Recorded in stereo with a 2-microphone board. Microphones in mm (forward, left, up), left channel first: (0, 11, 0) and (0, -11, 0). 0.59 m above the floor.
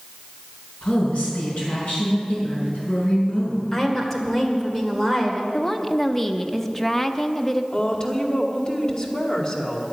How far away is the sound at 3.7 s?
About 2 m.